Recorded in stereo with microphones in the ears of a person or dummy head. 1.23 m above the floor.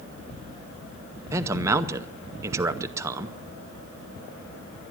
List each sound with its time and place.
1.3 s a man speaking: 15° right (ahead or behind), 0.7 m